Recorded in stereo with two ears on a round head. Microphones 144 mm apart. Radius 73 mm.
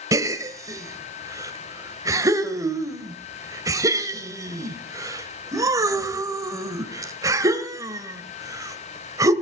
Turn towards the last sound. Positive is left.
turn(degrees=-20)  # may be behind; listen again after turning